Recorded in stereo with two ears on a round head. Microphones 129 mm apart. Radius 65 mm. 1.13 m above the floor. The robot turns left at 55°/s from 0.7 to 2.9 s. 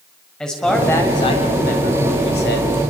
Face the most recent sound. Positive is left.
turn(degrees=55)